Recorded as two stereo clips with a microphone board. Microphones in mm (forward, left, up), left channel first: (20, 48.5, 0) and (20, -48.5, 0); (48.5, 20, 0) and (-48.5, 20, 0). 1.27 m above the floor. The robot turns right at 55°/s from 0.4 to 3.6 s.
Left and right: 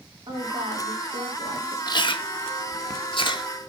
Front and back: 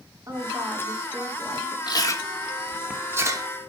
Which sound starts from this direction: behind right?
A woman speaking, at 0.3 s.